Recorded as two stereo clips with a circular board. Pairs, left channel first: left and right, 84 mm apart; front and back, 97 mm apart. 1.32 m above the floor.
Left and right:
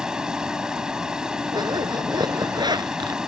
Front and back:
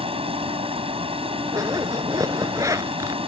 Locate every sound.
0.0 s running water: 170° right
1.5 s a zipper: 125° right